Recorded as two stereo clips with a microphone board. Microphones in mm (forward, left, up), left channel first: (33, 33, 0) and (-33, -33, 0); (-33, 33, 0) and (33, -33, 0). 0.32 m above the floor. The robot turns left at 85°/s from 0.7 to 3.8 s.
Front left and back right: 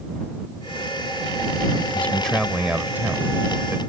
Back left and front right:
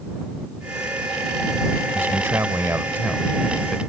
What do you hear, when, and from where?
1.9 s a man speaking: 5° right; by 3.8 s 160° right